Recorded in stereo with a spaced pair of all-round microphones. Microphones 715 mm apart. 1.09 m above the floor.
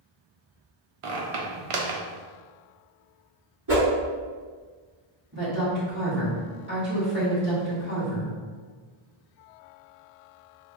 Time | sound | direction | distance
1.0 | a squeak | 55° right (ahead or behind) | 0.6 m
3.7 | a whoosh | 30° right (ahead or behind) | 1.5 m
5.3 | a woman speaking | 15° right (ahead or behind) | 1.9 m